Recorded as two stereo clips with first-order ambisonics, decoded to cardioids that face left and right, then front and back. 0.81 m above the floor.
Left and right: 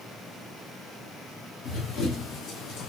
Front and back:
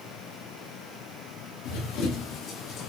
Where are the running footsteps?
30° left, 4 m; by 2.9 s 55° left, 2.5 m.